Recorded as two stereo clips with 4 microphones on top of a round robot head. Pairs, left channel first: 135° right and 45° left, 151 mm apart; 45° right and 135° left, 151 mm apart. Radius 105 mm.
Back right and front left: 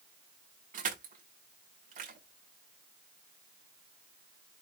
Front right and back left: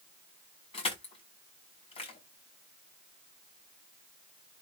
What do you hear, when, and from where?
0.7 s crushing: 10° left, 7 m